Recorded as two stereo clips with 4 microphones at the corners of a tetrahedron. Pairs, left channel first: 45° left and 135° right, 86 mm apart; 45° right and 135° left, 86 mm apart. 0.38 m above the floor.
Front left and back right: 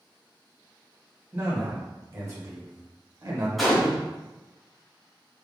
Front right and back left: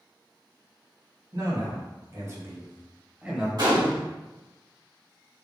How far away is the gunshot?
About 2.0 m.